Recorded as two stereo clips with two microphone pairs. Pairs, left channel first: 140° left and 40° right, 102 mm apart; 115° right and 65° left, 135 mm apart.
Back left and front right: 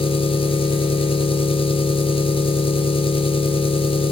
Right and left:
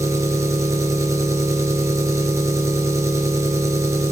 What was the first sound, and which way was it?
An engine running, 130° left.